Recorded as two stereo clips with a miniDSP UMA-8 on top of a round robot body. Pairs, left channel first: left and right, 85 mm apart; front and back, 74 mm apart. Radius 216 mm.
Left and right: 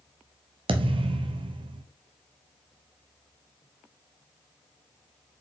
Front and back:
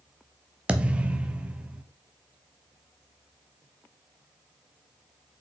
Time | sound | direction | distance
0.7 | a thud | 105° right | 0.8 m